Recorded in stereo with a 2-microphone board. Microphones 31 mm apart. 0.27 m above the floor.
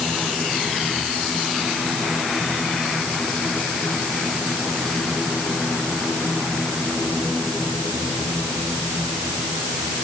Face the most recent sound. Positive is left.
No sound to turn to.